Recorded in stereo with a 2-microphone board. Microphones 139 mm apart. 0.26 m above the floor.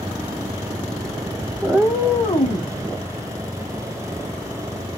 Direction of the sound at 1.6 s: 25° right (ahead or behind).